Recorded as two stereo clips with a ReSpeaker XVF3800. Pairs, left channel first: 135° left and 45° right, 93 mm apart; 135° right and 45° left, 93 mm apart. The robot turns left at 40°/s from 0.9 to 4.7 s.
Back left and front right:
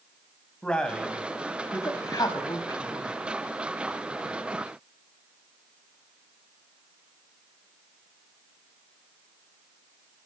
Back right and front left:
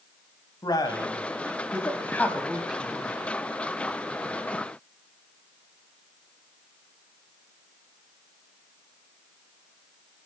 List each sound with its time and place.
0.6 s a man speaking: 150° right, 1.4 m; by 3.2 s 120° left, 1.4 m